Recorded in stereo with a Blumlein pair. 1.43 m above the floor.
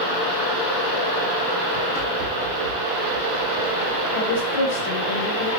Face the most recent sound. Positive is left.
turn(degrees=60)